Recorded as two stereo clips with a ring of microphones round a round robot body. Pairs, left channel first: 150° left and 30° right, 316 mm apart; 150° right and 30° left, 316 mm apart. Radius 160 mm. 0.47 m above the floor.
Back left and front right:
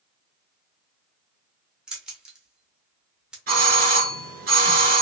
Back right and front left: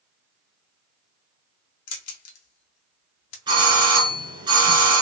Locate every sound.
1.9 s keys jangling: 115° right, 0.7 m
3.5 s a doorbell: 30° right, 1.4 m